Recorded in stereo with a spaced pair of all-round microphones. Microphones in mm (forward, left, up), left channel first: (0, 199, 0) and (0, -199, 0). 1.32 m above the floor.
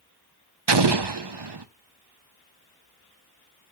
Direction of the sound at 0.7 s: 80° right.